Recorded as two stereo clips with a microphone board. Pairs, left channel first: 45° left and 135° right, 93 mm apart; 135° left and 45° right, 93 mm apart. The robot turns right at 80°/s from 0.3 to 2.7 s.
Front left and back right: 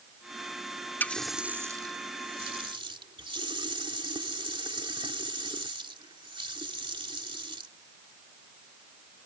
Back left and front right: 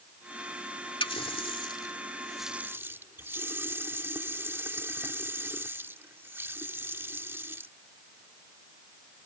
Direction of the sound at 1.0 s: 115° left.